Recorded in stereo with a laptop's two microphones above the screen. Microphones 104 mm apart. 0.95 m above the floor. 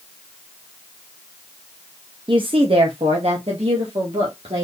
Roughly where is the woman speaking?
Right.